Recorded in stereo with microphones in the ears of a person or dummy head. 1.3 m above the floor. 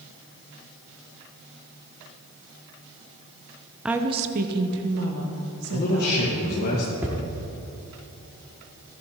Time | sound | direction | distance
3.9 | a woman speaking | centre (ahead or behind) | 0.6 m
5.7 | a man speaking | 50° left (ahead or behind) | 1.4 m
7.0 | hammering | 10° right (ahead or behind) | 0.9 m